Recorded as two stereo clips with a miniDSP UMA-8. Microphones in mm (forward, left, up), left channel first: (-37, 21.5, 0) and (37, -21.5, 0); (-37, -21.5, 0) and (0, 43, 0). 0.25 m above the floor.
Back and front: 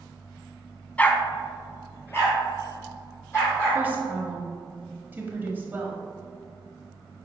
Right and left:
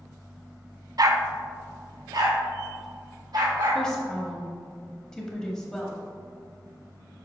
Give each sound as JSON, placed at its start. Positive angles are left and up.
{"t": 1.0, "sound": "a dog barking", "azimuth_deg": 80, "distance_m": 0.6}
{"t": 3.8, "sound": "a woman speaking", "azimuth_deg": -55, "distance_m": 1.1}